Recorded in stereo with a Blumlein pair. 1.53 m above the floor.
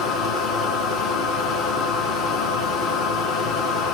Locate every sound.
0.0 s a machine running: 30° left, 1.1 m